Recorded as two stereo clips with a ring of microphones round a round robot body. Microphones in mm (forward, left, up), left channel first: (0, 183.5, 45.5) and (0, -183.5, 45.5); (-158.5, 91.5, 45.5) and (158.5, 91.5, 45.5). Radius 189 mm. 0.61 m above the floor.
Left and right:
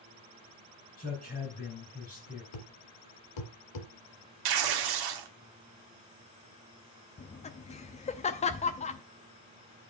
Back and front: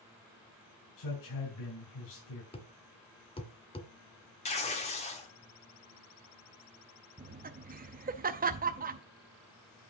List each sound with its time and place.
1.0 s a man speaking: 160° left, 3.5 m
2.5 s a thud: 105° left, 1.7 m
4.5 s tearing paper: 110° right, 1.3 m
7.2 s laughter: 35° left, 0.7 m